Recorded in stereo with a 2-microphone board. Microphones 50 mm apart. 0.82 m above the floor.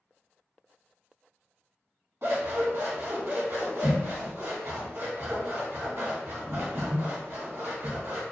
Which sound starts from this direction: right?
Scissors, at 2.2 s.